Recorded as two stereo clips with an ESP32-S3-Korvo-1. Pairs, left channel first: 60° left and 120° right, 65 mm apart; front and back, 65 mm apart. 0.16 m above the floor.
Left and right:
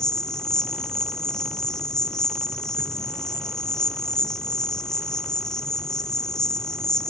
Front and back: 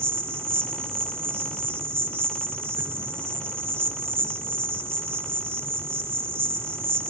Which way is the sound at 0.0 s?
140° left.